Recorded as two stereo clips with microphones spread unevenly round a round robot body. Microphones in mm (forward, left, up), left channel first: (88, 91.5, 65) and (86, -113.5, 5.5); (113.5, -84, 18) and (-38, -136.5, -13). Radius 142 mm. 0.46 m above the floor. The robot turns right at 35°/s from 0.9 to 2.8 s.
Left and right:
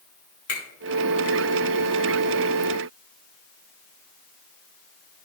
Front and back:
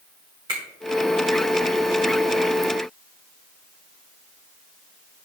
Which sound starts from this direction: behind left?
A finger snap, at 0.5 s.